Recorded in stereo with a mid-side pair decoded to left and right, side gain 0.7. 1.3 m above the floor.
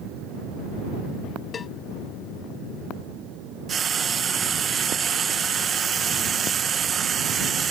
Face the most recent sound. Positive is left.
turn(degrees=-30)